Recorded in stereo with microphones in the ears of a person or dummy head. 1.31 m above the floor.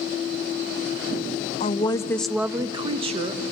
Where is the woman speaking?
35° left (ahead or behind), 0.6 m; by 3.4 s 45° right (ahead or behind), 1.0 m.